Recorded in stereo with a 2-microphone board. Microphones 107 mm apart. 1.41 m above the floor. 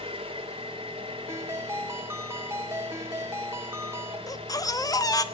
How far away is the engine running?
About 4.5 m.